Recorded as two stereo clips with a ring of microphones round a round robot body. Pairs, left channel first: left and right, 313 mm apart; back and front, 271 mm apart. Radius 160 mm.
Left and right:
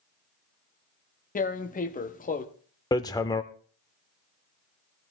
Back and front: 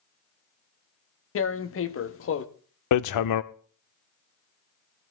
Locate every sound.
1.4 s tearing paper: 150° left, 1.0 m
2.9 s hammering: 170° left, 0.6 m